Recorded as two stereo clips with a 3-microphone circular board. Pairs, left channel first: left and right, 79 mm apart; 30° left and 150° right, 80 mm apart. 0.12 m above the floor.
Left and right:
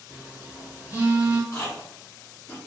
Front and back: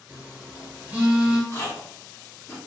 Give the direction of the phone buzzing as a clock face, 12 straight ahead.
4 o'clock.